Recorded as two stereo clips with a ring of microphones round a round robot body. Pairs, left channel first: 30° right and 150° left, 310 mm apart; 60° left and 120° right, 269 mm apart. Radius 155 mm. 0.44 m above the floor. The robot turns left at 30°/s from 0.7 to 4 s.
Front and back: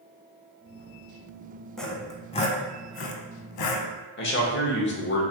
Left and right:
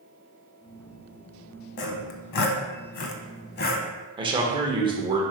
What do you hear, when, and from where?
1.8 s sawing: 60° left, 0.6 m; by 3.9 s 5° right, 0.6 m
4.2 s a man speaking: 60° right, 0.9 m